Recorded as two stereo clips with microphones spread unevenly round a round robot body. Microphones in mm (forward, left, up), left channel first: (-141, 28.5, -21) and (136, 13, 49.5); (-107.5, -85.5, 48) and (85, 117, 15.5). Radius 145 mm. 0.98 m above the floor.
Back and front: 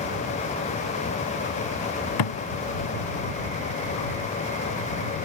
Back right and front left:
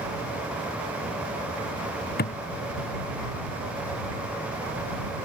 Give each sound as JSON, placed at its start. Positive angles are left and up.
{"t": 2.2, "sound": "a thud", "azimuth_deg": 170}